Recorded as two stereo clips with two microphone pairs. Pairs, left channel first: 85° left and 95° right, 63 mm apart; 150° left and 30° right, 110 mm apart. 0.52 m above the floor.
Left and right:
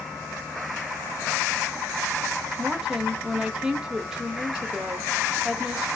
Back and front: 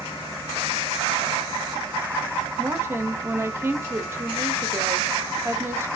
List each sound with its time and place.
2.6 s a woman speaking: 25° right, 0.6 m